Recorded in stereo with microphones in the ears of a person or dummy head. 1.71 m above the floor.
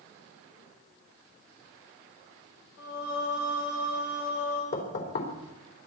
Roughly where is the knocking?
Left.